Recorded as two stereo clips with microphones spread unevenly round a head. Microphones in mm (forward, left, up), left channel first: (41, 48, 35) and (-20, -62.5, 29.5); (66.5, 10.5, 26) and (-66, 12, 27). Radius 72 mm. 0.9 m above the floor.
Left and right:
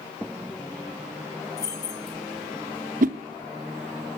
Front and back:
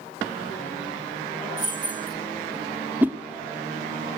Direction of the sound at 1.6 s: 125° left.